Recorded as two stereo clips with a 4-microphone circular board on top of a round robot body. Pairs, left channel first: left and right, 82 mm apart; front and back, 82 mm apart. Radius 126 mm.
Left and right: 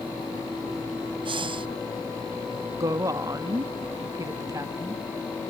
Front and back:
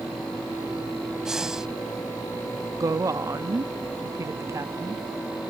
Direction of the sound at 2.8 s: 135° right.